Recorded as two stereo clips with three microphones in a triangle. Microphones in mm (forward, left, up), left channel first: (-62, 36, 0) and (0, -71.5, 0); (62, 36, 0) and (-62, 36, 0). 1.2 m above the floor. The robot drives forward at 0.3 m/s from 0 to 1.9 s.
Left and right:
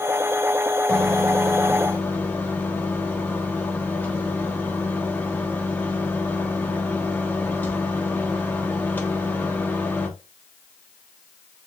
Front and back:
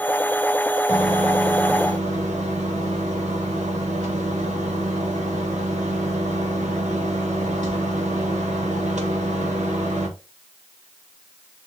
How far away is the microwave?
About 0.9 m.